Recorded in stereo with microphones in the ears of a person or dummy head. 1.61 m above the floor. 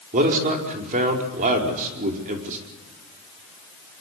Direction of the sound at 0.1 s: 40° right (ahead or behind).